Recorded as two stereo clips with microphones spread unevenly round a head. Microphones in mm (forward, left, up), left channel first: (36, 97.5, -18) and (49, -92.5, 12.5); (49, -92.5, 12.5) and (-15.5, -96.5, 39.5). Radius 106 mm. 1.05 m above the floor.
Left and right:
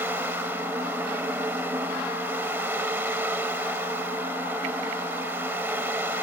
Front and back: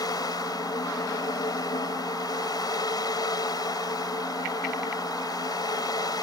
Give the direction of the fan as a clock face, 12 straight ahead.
12 o'clock.